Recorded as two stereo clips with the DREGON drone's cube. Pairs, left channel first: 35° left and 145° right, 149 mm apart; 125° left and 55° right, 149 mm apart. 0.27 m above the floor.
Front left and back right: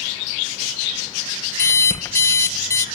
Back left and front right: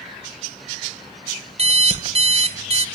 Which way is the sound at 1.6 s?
30° right.